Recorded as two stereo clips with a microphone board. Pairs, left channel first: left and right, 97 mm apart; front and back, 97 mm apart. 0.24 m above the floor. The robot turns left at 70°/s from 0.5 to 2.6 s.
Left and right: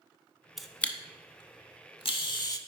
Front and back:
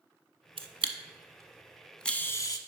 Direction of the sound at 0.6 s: 175° right.